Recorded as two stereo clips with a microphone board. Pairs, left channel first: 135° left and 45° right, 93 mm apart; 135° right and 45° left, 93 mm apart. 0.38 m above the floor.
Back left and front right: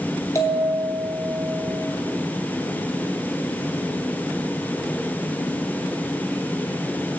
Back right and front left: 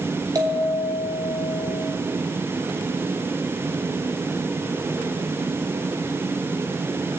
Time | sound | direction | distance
0.3 | a bell | 85° left | 2 m